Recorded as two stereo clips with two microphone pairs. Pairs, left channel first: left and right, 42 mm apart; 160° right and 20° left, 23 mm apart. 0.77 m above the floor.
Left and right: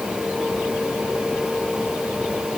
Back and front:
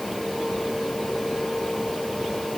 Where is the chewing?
I don't hear chewing.